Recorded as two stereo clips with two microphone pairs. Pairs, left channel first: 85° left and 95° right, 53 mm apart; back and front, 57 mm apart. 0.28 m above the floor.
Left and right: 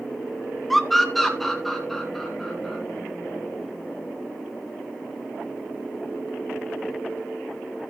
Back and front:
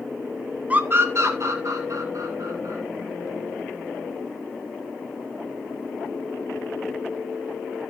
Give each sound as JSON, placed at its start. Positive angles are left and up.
{"t": 0.7, "sound": "a scream", "azimuth_deg": 5, "distance_m": 1.0}